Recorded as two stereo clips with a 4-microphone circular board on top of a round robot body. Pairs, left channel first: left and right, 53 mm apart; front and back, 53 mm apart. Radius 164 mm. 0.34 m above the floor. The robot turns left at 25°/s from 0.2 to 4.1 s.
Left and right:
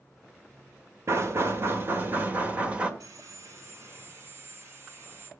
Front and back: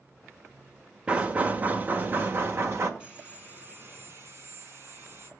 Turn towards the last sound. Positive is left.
turn(degrees=-135)